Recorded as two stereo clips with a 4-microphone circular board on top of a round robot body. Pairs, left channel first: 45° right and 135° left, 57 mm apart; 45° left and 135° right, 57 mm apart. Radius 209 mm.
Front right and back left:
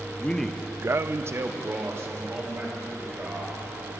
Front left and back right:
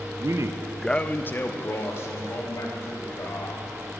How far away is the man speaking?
About 0.8 m.